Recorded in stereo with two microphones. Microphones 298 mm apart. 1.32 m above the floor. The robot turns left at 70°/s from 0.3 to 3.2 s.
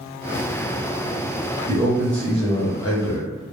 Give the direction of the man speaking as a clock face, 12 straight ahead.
5 o'clock.